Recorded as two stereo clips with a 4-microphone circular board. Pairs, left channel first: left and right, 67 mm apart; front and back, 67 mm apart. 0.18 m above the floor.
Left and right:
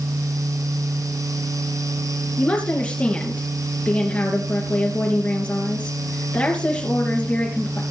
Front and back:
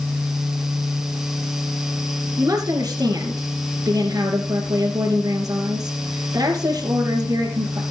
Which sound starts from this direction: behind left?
A woman speaking, at 2.4 s.